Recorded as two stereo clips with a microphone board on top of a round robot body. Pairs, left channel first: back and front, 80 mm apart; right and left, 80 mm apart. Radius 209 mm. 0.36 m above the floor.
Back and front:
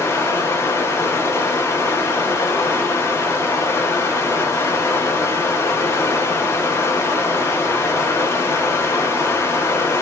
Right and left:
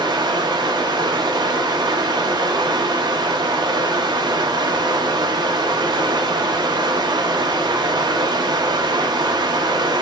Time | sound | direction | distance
0.0 | running water | 120° left | 0.7 m